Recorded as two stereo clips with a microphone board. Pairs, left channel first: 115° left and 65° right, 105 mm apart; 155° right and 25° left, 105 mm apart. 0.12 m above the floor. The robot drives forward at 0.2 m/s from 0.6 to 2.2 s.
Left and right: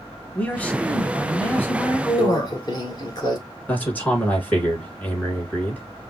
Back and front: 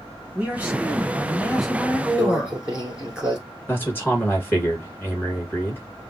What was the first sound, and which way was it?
A man speaking, 65° left.